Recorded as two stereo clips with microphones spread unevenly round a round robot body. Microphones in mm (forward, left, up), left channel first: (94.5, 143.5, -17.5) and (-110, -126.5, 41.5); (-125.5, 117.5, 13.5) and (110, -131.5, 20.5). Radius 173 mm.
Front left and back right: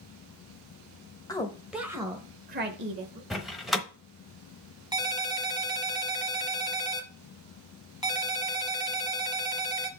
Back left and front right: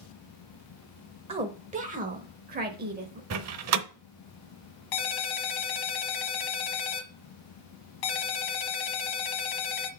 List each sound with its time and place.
1.3 s a woman speaking: 10° left, 1.1 m; by 3.2 s 95° right, 1.2 m
3.3 s a door slam: 25° right, 0.8 m
4.9 s a ringtone: 150° left, 1.1 m